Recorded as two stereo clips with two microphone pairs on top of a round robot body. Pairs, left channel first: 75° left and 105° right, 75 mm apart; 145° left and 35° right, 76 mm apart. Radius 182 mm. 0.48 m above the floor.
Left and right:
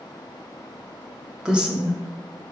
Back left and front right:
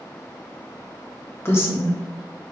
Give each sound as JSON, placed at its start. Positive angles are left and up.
{"t": 1.4, "sound": "a woman speaking", "azimuth_deg": 180, "distance_m": 0.8}